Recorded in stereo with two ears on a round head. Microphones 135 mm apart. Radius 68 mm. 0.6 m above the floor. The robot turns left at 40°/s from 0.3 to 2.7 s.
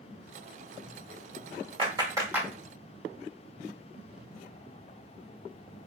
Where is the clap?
35° right (ahead or behind), 1.3 m; by 2.5 s 10° right (ahead or behind), 1.3 m.